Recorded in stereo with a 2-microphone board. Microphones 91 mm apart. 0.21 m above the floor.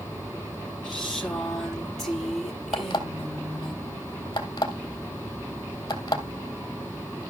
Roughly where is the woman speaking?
Centre.